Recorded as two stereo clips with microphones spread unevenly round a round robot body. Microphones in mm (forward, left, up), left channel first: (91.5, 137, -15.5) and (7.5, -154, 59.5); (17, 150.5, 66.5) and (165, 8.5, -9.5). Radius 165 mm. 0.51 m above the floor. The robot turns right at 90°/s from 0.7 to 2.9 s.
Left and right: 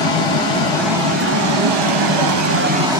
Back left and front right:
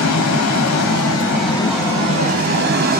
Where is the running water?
140° left, 1.0 m; by 3.0 s 20° right, 1.0 m.